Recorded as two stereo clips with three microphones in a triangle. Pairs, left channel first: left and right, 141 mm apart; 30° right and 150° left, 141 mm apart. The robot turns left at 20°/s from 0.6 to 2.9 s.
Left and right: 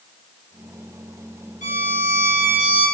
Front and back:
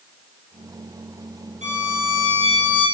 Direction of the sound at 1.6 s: 120° left.